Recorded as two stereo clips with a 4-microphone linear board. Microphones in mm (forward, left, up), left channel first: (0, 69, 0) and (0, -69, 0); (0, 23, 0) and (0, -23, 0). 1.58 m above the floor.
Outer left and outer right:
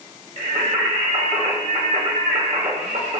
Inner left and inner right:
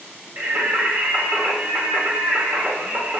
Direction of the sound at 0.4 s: 50° right (ahead or behind).